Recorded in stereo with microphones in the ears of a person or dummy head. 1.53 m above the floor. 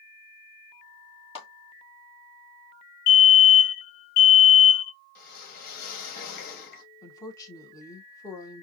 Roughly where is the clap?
Left.